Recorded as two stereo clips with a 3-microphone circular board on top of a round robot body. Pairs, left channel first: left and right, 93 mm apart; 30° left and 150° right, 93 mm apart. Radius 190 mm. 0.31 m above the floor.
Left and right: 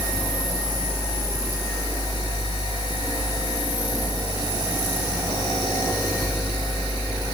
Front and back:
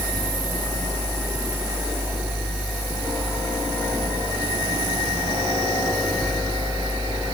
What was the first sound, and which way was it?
Only background noise.